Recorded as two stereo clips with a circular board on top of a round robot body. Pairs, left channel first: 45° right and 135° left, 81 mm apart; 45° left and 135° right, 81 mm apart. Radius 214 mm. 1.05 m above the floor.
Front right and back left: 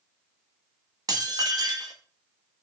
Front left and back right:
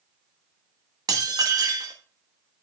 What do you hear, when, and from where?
1.1 s dishes clattering: straight behind, 1.5 m